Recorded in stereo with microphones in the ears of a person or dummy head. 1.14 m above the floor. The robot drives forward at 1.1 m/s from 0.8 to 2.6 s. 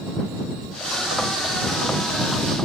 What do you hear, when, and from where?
Only background noise.